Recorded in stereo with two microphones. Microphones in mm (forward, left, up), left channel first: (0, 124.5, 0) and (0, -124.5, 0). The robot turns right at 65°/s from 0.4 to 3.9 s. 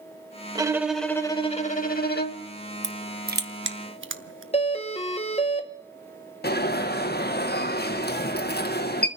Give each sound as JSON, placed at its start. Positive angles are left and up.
{"t": 0.6, "sound": "a violin", "azimuth_deg": -25, "distance_m": 0.9}
{"t": 2.8, "sound": "crushing", "side_deg": -15, "distance_m": 0.8}
{"t": 4.5, "sound": "a doorbell", "side_deg": 25, "distance_m": 1.1}
{"t": 6.4, "sound": "an alarm", "side_deg": 40, "distance_m": 0.9}